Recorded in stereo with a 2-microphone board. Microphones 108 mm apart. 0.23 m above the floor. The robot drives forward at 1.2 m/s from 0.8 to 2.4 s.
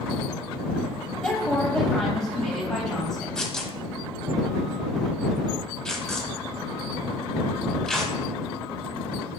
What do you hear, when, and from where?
1.2 s a woman speaking: 5° left (ahead or behind), 1.1 m
3.4 s tearing paper: 5° left (ahead or behind), 0.9 m